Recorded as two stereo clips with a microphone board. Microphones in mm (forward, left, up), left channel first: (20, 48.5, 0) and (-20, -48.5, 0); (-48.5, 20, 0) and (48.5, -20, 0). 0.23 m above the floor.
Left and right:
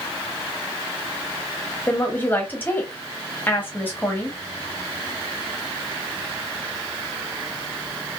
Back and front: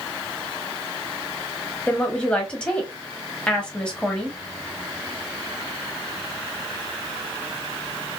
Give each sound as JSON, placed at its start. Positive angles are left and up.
{"t": 1.9, "sound": "a woman speaking", "azimuth_deg": 95, "distance_m": 0.9}